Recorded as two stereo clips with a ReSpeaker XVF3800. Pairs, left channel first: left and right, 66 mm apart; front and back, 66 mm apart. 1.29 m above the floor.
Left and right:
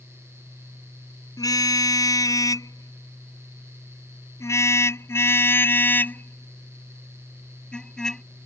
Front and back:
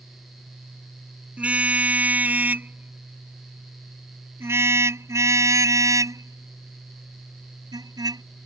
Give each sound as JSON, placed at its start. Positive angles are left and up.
{"t": 1.4, "sound": "a car horn", "azimuth_deg": 110}